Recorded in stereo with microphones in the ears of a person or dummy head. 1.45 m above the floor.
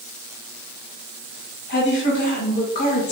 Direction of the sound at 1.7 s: 55° left (ahead or behind).